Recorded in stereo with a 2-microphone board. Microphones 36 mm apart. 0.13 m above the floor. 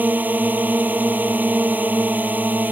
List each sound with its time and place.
0.0 s a drone: 55° right (ahead or behind)